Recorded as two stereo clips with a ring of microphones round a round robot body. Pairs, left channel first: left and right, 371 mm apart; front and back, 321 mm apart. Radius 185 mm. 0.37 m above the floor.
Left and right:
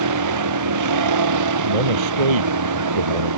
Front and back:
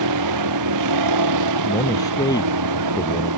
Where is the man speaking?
80° right.